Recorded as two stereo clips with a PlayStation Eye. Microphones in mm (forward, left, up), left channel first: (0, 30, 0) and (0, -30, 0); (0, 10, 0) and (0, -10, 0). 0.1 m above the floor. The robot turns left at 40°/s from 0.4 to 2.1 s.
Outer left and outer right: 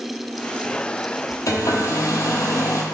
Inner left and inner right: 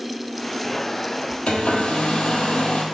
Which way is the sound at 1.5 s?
70° left (ahead or behind).